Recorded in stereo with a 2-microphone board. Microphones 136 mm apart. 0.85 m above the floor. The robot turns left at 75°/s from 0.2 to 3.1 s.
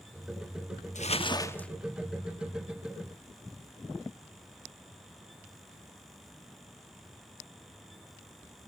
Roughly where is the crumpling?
Ahead left.